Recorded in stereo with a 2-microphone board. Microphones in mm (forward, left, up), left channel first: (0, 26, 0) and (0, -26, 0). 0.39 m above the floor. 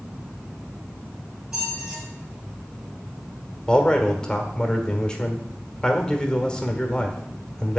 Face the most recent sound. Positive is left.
turn(degrees=15)  # may be behind; listen again after turning